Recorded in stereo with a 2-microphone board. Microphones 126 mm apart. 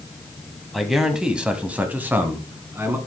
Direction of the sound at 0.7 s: Centre (ahead or behind).